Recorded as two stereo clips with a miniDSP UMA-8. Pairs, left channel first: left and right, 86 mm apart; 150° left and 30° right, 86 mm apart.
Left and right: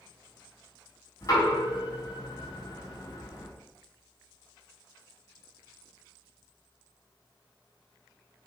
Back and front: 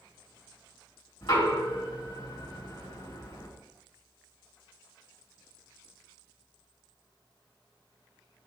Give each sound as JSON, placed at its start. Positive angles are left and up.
{"t": 1.2, "sound": "knocking", "azimuth_deg": 135, "distance_m": 3.5}